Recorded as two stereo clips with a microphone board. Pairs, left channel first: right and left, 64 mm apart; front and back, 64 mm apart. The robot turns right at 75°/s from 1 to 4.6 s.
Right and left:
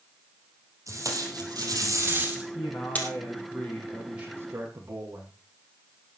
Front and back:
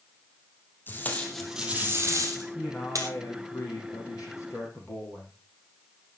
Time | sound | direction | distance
0.9 | tape being pulled | 55° left | 3.5 m
2.5 | a man speaking | 100° right | 6 m